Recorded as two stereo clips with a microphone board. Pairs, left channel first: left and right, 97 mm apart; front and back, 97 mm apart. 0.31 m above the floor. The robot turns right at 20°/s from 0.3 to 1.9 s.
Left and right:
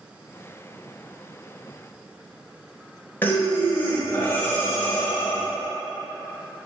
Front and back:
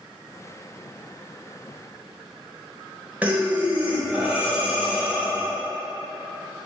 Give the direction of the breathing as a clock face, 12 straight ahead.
8 o'clock.